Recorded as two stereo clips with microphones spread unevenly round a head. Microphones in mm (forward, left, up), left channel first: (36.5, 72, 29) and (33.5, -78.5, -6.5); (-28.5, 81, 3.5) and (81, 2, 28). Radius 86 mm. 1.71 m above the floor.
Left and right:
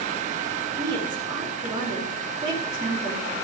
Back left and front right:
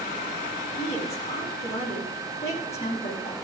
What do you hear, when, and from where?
0.8 s a woman speaking: 160° right, 4.5 m